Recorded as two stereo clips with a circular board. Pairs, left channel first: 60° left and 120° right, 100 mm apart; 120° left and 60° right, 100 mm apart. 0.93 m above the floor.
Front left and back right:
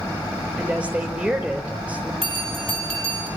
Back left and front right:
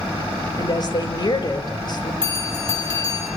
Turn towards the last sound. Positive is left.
turn(degrees=-110)